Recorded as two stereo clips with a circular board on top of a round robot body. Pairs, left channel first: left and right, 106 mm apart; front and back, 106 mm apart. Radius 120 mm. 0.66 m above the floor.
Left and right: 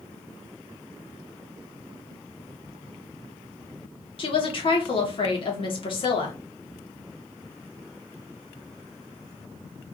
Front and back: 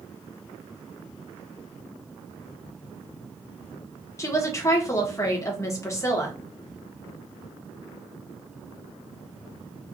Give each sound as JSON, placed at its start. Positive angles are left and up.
{"t": 4.2, "sound": "a woman speaking", "azimuth_deg": 60, "distance_m": 1.5}